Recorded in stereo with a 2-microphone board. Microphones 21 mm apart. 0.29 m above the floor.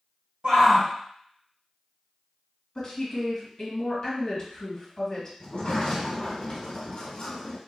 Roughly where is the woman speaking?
Left.